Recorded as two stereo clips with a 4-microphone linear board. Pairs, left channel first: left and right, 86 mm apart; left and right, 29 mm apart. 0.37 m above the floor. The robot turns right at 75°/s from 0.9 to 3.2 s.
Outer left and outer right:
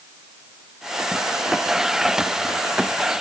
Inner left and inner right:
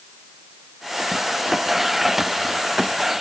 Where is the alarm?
I don't hear an alarm.